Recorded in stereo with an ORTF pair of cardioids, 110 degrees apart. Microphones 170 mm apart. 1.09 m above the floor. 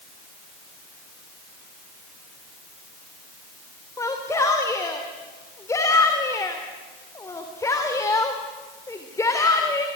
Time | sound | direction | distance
4.0 | a shout | 20° left | 3 m